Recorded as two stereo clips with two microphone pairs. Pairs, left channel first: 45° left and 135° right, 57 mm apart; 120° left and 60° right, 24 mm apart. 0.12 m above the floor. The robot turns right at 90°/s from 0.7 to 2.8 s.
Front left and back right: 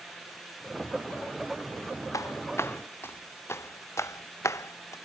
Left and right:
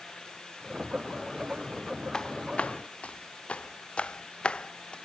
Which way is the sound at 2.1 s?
55° left.